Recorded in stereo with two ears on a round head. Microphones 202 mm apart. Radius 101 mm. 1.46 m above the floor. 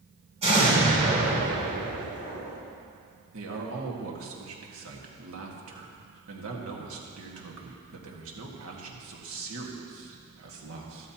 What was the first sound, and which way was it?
An explosion, 30° right (ahead or behind).